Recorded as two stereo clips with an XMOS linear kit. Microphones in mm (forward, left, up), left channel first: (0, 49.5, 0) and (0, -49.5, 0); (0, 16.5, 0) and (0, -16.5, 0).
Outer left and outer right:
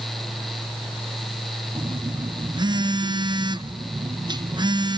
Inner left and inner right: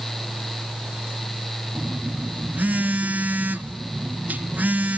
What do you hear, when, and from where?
1.8 s a phone buzzing: 50° right (ahead or behind), 0.7 m